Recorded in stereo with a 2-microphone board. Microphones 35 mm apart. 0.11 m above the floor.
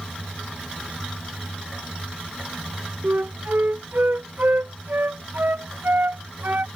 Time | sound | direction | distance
3.0 | a flute | 65° right (ahead or behind) | ?